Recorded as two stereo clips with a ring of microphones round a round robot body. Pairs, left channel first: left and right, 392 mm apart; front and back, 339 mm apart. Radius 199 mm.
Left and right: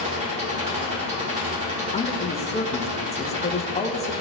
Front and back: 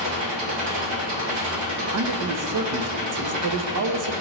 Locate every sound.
0.0 s an engine running: 165° right, 1.6 m
1.9 s a man speaking: 160° left, 0.8 m